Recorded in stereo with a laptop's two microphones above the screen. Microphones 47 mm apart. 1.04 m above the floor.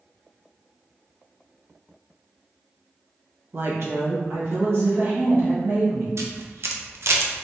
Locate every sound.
3.5 s a woman speaking: 60° right (ahead or behind), 0.9 m; by 6.1 s 65° right (ahead or behind), 2 m
6.2 s a camera shutter: 70° right (ahead or behind), 0.6 m